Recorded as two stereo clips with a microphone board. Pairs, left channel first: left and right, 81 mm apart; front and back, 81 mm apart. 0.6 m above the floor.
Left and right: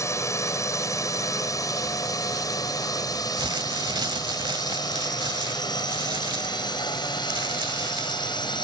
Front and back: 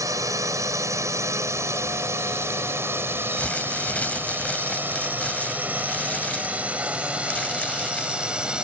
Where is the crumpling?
75° right.